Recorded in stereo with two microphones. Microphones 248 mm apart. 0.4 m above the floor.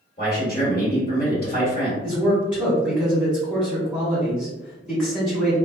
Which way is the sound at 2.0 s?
5° left (ahead or behind).